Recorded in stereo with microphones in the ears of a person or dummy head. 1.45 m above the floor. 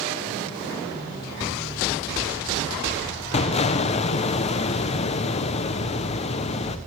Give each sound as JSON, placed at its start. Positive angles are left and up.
{"t": 3.3, "sound": "an explosion", "side_deg": 35, "distance_m": 0.9}